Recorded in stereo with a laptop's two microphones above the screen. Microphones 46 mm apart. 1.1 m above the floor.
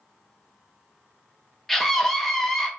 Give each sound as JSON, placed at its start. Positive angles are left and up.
{"t": 1.7, "sound": "a scream", "side_deg": 5, "distance_m": 0.6}